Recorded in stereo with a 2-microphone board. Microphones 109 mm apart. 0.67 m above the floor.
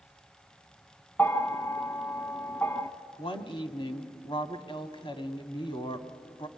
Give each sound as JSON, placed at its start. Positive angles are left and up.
{"t": 1.2, "sound": "a bell", "side_deg": 20, "distance_m": 1.6}
{"t": 3.2, "sound": "a woman speaking", "side_deg": 55, "distance_m": 1.9}